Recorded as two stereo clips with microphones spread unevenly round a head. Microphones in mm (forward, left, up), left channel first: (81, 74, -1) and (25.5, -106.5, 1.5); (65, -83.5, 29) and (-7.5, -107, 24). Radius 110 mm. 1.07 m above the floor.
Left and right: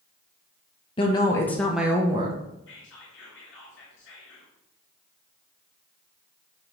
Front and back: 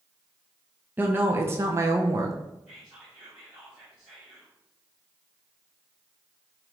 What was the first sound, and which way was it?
A woman speaking, 135° left.